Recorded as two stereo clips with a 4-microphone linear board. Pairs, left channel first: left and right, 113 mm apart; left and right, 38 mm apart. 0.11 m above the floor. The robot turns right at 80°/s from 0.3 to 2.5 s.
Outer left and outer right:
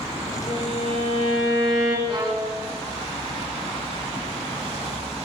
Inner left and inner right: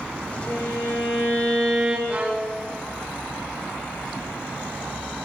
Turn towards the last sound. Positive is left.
turn(degrees=-15)